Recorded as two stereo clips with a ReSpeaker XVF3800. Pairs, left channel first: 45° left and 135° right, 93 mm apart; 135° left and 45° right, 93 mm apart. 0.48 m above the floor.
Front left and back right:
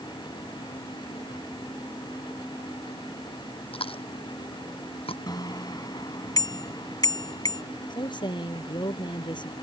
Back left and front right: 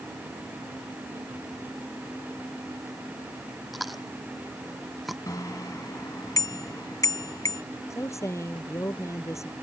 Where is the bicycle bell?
85° left.